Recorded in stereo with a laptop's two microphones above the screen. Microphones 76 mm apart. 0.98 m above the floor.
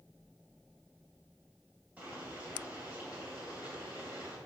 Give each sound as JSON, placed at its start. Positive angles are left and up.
{"t": 2.0, "sound": "boiling", "side_deg": -20, "distance_m": 2.5}